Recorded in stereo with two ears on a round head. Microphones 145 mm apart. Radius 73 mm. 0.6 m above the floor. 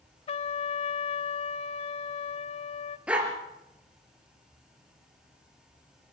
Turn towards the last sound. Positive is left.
turn(degrees=-10)  # may be behind; listen again after turning